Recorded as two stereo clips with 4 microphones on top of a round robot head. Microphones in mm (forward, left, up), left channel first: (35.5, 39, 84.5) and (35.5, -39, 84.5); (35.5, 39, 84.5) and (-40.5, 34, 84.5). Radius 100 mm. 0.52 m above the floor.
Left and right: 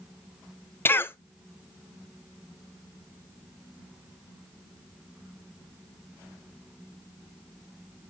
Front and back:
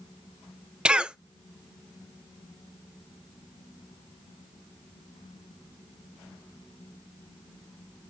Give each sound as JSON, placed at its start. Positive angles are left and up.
{"t": 0.8, "sound": "a cough", "azimuth_deg": 115, "distance_m": 0.8}